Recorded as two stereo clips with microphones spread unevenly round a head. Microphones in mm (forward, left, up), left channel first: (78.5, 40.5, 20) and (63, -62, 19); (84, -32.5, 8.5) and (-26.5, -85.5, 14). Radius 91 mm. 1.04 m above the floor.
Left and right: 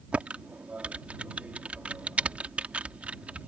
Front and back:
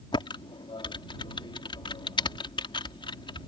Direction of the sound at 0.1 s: 20° right.